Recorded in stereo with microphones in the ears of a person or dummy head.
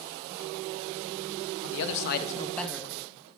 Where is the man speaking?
70° left (ahead or behind), 0.7 m; by 3.3 s 35° right (ahead or behind), 0.8 m.